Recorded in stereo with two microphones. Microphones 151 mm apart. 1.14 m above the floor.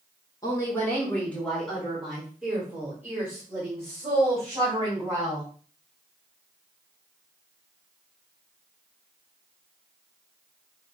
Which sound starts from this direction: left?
A woman speaking, at 0.4 s.